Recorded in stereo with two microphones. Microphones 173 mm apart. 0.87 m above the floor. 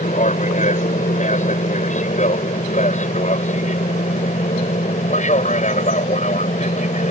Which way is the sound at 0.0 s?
45° left (ahead or behind).